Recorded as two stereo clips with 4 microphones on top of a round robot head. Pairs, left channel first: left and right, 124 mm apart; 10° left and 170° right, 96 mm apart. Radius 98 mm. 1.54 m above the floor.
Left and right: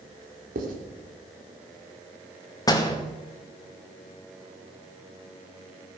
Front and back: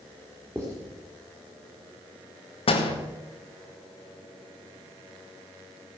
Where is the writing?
100° right, 2.5 m.